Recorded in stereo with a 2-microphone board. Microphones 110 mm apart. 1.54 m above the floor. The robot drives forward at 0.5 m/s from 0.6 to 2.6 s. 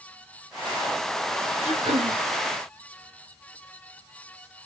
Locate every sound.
1.6 s throat clearing: 80° right, 1.8 m; by 2.2 s 70° right (ahead or behind), 1.9 m